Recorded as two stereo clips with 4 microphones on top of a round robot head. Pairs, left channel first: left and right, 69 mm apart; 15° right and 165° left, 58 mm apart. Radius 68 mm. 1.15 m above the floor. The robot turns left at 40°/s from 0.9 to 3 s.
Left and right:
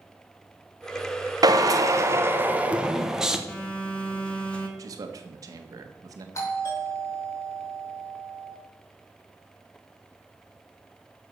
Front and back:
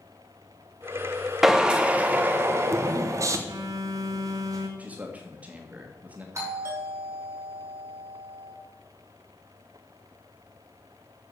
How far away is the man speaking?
About 1.6 m.